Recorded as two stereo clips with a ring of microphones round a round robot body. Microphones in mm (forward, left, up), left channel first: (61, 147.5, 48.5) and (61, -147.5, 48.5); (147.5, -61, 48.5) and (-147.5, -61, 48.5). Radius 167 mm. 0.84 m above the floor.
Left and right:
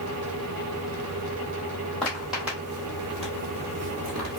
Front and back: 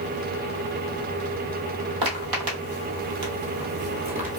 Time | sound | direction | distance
2.0 | footsteps | 175° left | 2.0 m